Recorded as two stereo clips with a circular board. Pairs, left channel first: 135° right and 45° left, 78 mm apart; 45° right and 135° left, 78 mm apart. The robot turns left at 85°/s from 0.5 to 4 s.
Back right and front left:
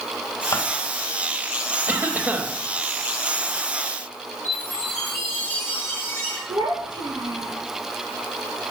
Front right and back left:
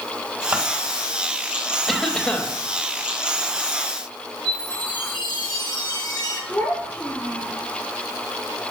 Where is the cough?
50° left, 1.2 m; by 2.5 s 5° right, 1.2 m.